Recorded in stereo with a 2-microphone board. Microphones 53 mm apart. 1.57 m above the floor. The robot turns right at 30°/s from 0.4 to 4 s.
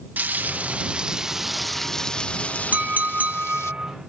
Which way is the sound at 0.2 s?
40° right.